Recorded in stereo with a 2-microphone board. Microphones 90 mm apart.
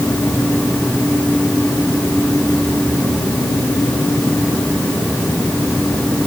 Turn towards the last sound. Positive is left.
No sound to turn to.